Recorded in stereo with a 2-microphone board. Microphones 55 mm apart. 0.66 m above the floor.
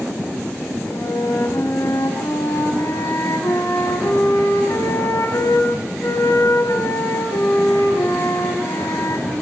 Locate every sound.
0.9 s a flute: 80° left, 6.5 m